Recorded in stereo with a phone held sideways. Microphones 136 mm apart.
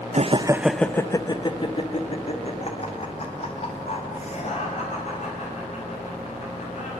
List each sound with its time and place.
0.1 s laughter: 55° right (ahead or behind), 0.6 m; by 6.9 s 55° left (ahead or behind), 6 m